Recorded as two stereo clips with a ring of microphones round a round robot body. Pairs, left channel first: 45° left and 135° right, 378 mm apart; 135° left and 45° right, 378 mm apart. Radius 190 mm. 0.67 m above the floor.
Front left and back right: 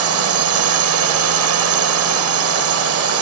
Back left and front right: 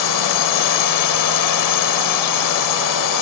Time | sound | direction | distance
0.0 | a drone | 175° left | ?